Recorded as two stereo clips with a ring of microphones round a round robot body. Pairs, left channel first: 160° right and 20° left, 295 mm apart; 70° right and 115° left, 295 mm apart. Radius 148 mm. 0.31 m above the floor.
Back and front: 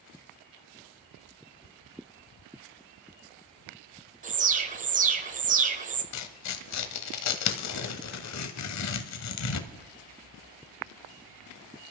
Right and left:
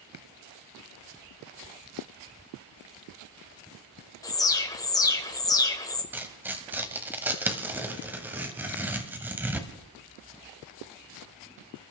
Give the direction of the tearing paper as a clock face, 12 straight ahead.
6 o'clock.